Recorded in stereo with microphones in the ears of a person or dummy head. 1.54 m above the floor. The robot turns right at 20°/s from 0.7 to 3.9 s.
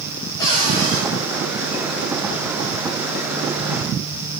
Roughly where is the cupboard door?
Centre.